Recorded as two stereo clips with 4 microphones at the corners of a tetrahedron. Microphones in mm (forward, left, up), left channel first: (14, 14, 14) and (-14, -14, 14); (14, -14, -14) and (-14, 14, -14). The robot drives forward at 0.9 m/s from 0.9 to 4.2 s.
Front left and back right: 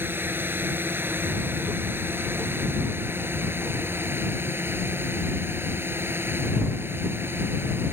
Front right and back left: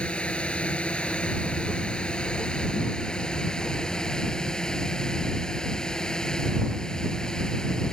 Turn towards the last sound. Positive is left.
turn(degrees=-120)